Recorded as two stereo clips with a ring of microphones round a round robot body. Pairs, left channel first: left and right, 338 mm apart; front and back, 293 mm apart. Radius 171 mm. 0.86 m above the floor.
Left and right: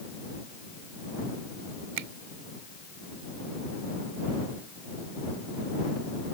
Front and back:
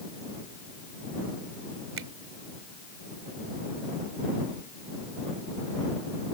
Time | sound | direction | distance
2.0 | a finger snap | 125° right | ?